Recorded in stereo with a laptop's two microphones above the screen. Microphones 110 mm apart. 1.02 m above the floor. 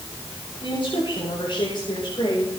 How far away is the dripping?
No dripping in this recording.